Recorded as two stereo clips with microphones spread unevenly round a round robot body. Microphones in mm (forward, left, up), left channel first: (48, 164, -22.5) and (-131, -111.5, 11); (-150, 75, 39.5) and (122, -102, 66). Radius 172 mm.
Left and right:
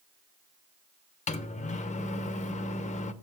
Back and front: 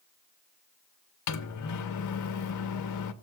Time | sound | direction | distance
1.3 | a microwave | 120° left | 0.8 m